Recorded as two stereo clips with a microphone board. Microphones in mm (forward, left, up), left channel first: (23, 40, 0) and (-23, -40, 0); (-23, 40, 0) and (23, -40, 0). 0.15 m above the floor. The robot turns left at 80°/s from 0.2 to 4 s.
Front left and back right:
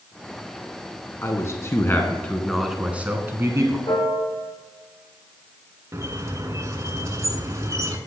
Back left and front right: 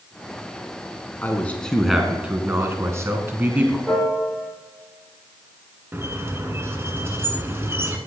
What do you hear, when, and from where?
1.2 s a man speaking: 80° left, 1.1 m; by 3.8 s 125° right, 1.1 m
3.9 s a piano: 30° left, 3.5 m; by 4.5 s 20° left, 3.5 m
5.9 s a squeak: 100° right, 0.9 m